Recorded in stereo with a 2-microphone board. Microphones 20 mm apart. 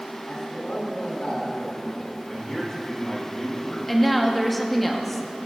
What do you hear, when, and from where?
0.3 s a man speaking: 75° left (ahead or behind), 2.5 m
2.3 s a man speaking: 40° left (ahead or behind), 3 m
3.9 s a woman speaking: 10° left (ahead or behind), 1.0 m